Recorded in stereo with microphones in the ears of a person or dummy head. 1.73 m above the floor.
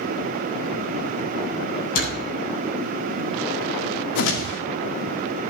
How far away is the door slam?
About 8 m.